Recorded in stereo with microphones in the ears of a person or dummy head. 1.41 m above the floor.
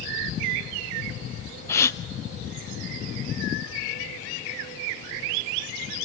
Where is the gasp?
10° left (ahead or behind), 0.6 m.